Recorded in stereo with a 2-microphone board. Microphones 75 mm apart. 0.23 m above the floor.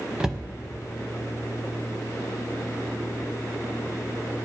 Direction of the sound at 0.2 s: 10° right (ahead or behind).